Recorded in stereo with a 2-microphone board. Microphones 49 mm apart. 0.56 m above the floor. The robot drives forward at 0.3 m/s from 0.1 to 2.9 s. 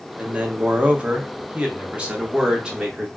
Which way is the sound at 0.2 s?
25° right (ahead or behind).